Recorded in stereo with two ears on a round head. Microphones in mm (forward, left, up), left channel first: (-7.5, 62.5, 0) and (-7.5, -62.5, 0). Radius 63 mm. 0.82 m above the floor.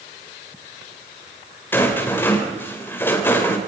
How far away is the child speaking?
No child speaking in this recording.